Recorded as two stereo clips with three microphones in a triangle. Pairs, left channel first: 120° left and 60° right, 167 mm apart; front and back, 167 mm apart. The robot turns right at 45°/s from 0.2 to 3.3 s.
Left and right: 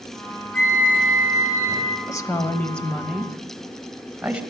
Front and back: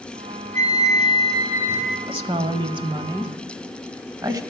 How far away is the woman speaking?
About 1.0 m.